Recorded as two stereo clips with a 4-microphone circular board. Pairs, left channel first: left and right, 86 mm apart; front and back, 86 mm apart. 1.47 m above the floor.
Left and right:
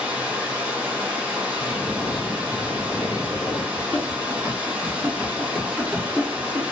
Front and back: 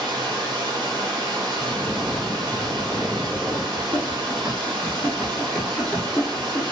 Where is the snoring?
95° left, 1.4 m.